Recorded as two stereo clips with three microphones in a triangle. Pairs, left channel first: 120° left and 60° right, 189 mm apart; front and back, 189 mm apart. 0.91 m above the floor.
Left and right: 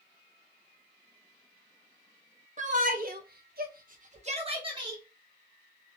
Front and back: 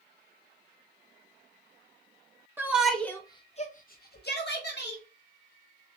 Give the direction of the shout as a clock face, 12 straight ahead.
3 o'clock.